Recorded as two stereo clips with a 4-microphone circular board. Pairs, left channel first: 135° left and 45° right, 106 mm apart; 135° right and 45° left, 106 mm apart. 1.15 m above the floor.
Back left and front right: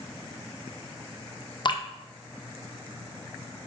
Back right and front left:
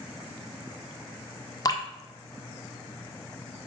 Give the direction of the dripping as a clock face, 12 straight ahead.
6 o'clock.